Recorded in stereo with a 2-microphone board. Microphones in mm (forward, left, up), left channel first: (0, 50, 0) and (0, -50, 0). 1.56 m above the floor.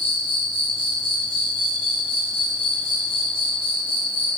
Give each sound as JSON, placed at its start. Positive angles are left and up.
{"t": 0.0, "sound": "an insect", "side_deg": 60, "distance_m": 1.0}